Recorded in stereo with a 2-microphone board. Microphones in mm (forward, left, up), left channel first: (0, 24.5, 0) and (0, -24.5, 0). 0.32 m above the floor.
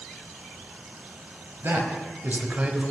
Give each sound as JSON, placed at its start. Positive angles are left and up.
{"t": 1.6, "sound": "a man speaking", "side_deg": -55, "distance_m": 1.3}